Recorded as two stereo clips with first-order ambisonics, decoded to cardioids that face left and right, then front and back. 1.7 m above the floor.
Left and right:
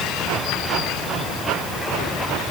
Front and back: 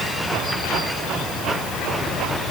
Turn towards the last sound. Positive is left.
No sound to turn to.